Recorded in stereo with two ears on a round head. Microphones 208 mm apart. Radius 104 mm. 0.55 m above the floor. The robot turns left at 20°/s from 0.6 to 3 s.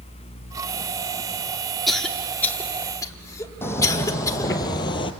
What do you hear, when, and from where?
1.9 s a cough: centre (ahead or behind), 1.2 m; by 4.5 s 15° left (ahead or behind), 1.2 m
3.6 s footsteps: 10° left (ahead or behind), 1.6 m; by 5.1 s 25° left (ahead or behind), 0.9 m